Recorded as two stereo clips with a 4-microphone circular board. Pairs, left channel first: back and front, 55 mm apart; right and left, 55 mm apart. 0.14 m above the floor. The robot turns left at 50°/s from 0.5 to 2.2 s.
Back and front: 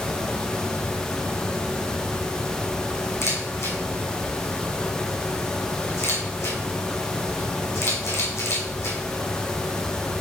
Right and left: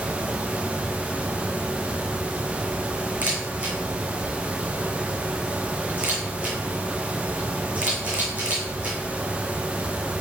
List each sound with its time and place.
3.2 s a camera shutter: 150° left, 2.5 m